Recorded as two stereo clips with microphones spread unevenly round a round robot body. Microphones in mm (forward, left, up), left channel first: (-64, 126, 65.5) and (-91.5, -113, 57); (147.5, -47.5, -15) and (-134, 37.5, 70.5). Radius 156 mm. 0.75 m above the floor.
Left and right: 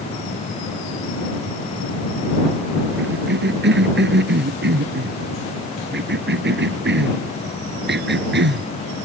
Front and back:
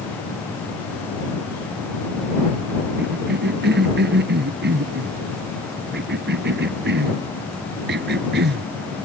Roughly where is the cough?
Behind right.